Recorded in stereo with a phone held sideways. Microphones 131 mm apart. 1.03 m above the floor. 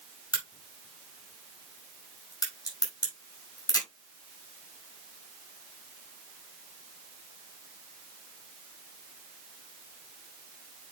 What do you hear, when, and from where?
0.3 s a crack: 30° left (ahead or behind), 6 m